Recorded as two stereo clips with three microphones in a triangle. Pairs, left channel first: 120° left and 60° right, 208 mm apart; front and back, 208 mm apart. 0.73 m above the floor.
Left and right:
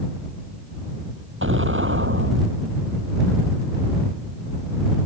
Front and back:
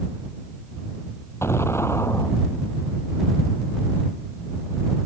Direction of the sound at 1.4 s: 80° right.